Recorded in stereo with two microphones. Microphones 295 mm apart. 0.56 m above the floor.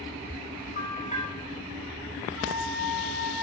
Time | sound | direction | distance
0.8 | a bell | 25° left (ahead or behind) | 1.9 m
2.4 | a flute | 40° right (ahead or behind) | 1.5 m